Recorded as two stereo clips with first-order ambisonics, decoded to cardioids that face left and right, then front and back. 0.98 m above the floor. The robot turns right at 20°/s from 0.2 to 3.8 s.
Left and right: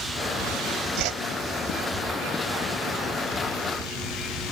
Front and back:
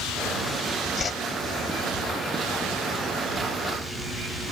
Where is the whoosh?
70° right; by 1.2 s 65° right.